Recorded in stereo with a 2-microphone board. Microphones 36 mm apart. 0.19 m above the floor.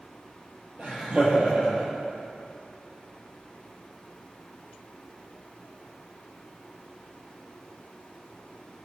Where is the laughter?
40° right (ahead or behind), 3.5 m.